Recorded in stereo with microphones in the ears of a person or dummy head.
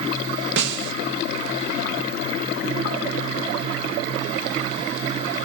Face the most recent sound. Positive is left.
turn(degrees=-70)  # may be behind; listen again after turning